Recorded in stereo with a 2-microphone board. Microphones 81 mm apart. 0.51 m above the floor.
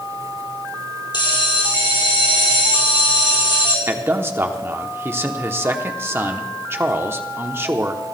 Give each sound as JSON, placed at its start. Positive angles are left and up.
{"t": 1.1, "sound": "a bell", "side_deg": 65, "distance_m": 3.0}
{"t": 3.9, "sound": "a man speaking", "side_deg": -30, "distance_m": 0.9}